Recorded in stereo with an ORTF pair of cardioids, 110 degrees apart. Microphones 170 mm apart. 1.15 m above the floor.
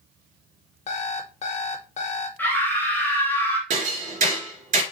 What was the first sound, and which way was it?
An alarm clock, 45° left.